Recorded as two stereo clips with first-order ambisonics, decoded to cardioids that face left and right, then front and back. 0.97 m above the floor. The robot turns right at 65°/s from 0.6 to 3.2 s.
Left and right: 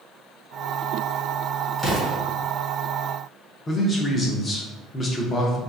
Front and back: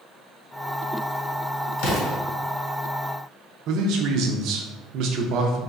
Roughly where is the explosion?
Ahead.